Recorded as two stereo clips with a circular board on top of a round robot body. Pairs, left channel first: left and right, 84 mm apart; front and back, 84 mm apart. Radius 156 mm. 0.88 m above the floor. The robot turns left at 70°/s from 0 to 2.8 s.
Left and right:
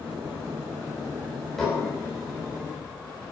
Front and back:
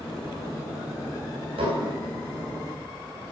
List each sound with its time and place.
1.6 s dishes clattering: straight behind, 4 m; by 1.9 s 155° left, 4 m